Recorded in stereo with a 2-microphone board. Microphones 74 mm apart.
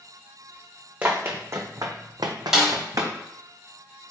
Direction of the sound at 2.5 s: 10° right (ahead or behind).